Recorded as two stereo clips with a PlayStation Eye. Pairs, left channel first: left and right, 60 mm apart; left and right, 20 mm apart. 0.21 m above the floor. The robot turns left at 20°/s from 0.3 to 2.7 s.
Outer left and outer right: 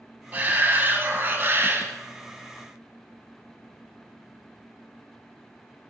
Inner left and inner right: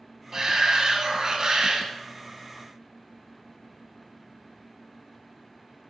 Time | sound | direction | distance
0.3 | a shout | 50° right | 1.8 m